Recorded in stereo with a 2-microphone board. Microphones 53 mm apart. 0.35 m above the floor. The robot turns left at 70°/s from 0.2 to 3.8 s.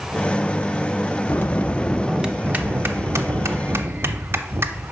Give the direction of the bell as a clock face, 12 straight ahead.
10 o'clock.